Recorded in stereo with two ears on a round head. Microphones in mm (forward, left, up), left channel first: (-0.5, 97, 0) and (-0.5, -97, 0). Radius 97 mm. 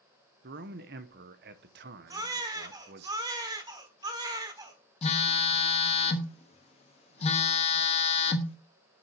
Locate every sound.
0.4 s a man speaking: 45° right (ahead or behind), 1.0 m
2.1 s a baby crying: 20° right (ahead or behind), 1.3 m
5.0 s a phone buzzing: 30° left (ahead or behind), 1.1 m